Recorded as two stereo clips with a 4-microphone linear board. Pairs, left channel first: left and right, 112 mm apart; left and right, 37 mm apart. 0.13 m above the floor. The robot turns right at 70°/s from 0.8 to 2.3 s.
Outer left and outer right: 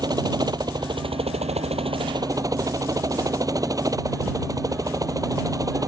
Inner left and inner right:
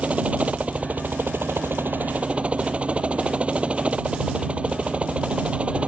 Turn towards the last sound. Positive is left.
turn(degrees=-35)